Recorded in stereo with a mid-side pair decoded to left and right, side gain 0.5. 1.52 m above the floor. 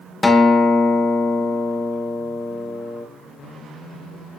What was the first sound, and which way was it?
A guitar, 20° left.